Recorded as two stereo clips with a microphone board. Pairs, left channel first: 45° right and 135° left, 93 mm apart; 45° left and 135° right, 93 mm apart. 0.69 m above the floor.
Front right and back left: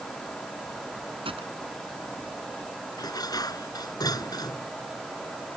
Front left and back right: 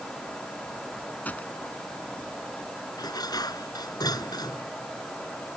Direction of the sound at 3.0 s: Straight ahead.